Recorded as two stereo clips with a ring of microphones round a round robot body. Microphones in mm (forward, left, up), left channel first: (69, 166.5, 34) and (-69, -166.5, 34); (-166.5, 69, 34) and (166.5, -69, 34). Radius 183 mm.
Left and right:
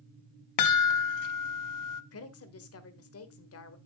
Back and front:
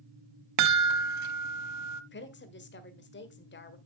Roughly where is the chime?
Ahead left.